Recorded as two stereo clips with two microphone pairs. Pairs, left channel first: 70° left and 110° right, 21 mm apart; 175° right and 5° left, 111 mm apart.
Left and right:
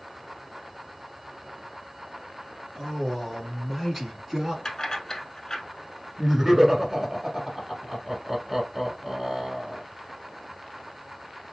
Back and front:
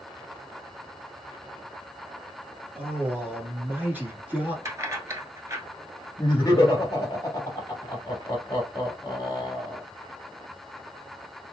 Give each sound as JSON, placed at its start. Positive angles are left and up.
{"t": 2.8, "sound": "a man speaking", "azimuth_deg": 55, "distance_m": 1.6}
{"t": 4.7, "sound": "keys jangling", "azimuth_deg": 40, "distance_m": 0.9}
{"t": 6.2, "sound": "laughter", "azimuth_deg": -160, "distance_m": 1.2}